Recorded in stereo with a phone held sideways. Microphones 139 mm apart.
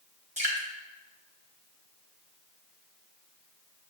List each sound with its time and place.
0.4 s dripping: 55° right (ahead or behind), 1.0 m